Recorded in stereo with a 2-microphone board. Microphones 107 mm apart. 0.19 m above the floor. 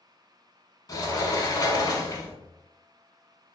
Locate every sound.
0.9 s a sliding door: 35° left (ahead or behind), 0.6 m